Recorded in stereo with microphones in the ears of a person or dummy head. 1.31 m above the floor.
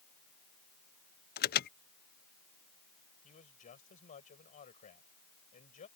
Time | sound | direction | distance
1.4 | an alarm | 50° left (ahead or behind) | ?
3.2 | a man speaking | 40° left (ahead or behind) | ?